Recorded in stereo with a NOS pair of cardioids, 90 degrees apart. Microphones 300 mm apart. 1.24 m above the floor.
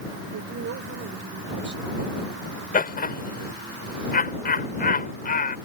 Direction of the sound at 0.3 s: 60° right.